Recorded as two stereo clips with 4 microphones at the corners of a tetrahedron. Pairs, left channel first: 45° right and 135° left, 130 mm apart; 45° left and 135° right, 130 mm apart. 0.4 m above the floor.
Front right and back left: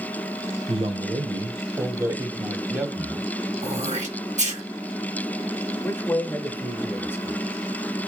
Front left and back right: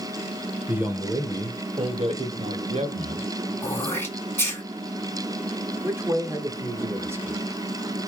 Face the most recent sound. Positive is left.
turn(degrees=-95)